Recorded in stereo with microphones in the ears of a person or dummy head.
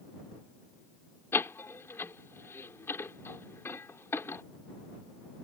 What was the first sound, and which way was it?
A door slam, 10° left (ahead or behind).